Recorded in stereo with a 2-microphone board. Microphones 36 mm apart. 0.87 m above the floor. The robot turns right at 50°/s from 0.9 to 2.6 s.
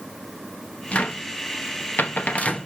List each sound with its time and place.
0.9 s a cupboard door: 40° left (ahead or behind), 1.0 m; by 2.7 s 35° left (ahead or behind), 1.0 m